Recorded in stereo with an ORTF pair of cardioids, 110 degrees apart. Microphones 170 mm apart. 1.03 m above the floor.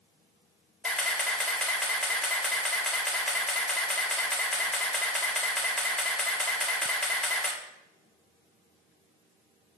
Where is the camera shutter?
5° left, 2 m.